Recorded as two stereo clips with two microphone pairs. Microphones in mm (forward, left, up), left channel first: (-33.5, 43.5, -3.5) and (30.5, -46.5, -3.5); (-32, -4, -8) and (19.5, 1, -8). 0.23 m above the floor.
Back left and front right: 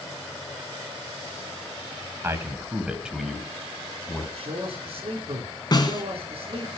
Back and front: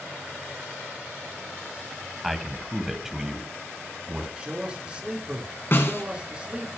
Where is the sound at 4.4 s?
60° right, 3.5 m.